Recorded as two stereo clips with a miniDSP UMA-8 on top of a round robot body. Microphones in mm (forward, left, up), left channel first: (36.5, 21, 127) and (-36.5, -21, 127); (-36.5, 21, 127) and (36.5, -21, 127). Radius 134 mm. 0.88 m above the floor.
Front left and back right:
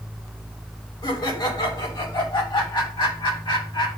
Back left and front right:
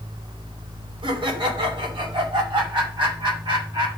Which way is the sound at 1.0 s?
5° right.